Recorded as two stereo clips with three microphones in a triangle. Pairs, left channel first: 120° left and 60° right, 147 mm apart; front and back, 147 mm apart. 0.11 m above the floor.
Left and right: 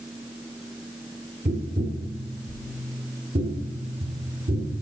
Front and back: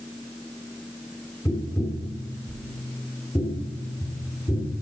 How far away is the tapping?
About 1.9 m.